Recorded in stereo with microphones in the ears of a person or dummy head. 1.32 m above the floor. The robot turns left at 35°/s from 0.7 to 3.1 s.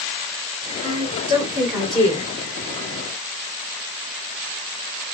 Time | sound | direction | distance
0.8 | a woman speaking | 140° right | 4 m